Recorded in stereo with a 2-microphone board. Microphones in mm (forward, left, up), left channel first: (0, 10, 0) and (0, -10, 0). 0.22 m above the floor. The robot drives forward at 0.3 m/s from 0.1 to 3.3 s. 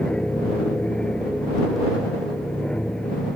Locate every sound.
0.0 s an aircraft: 50° left (ahead or behind)